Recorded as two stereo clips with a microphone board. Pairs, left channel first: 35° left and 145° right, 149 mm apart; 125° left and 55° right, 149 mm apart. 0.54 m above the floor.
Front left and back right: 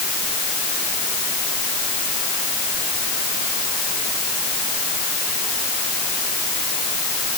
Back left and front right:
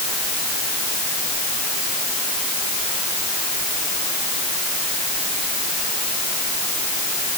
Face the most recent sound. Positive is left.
No sound to turn to.